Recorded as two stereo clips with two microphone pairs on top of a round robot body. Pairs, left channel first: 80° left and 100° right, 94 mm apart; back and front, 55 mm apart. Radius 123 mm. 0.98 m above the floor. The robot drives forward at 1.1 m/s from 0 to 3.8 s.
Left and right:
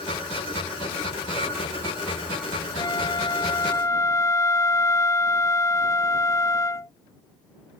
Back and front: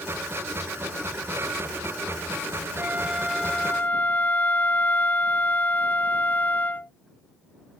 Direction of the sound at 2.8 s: 45° left.